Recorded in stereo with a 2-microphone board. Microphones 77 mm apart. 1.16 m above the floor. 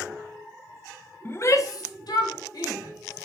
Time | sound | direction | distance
1.2 | a shout | 30° left (ahead or behind) | 0.5 m